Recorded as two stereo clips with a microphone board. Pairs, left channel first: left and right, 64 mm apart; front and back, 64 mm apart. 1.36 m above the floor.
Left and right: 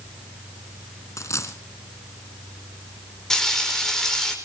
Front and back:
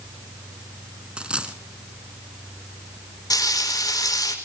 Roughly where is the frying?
Ahead.